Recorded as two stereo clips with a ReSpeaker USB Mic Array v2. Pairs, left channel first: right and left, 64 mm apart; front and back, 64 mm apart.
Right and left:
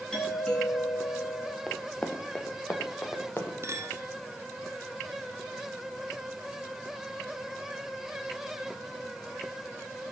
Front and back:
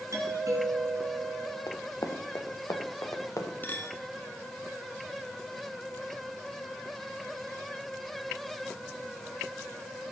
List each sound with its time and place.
0.1 s a doorbell: 170° right, 3 m
1.7 s running footsteps: 15° right, 1.6 m; by 3.5 s 35° right, 2.5 m
3.6 s a clink: 55° left, 1.2 m